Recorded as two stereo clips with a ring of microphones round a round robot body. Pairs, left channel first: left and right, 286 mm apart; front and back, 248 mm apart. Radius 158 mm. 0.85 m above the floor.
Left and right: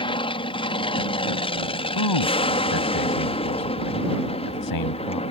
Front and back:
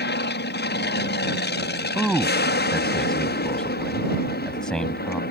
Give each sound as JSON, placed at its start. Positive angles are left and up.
{"t": 0.0, "sound": "an aircraft", "azimuth_deg": 25}
{"t": 1.9, "sound": "a man speaking", "azimuth_deg": 85}